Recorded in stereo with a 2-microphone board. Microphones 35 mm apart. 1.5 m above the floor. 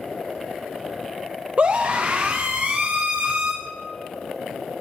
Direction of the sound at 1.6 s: 40° right (ahead or behind).